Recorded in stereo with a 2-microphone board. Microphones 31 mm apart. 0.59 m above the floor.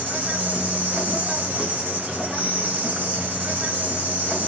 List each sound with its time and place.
0.0 s an insect: 60° right (ahead or behind), 2.5 m